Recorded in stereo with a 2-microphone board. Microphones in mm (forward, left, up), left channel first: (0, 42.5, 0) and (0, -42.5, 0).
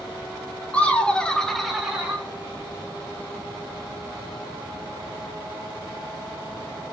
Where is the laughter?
15° left (ahead or behind), 0.9 m; by 2.2 s 10° right (ahead or behind), 1.0 m.